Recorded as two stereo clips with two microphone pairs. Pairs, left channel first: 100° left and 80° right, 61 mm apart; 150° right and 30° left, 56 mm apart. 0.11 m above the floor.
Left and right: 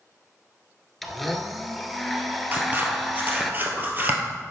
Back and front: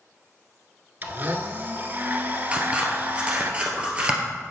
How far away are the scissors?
About 1.6 m.